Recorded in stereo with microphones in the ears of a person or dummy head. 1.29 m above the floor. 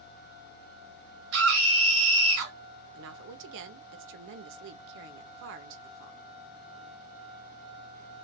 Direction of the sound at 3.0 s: 80° right.